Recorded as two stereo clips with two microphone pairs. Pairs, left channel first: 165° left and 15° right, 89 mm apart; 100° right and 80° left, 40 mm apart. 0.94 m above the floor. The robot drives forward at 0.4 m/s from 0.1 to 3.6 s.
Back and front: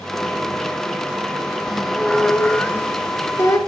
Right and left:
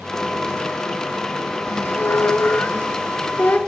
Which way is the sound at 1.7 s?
100° right.